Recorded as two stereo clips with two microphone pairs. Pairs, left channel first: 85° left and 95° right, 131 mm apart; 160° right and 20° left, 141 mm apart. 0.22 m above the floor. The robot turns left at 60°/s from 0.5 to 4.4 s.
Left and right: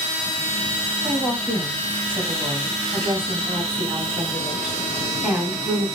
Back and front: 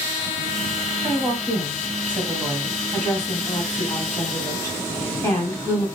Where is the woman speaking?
20° left, 1.6 m; by 5.9 s straight behind, 1.6 m.